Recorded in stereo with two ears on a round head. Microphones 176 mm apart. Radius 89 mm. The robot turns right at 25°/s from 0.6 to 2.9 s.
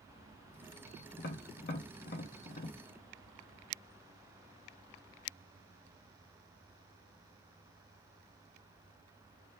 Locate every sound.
1.2 s tapping: 50° left (ahead or behind), 1.0 m; by 2.8 s 45° left (ahead or behind), 1.0 m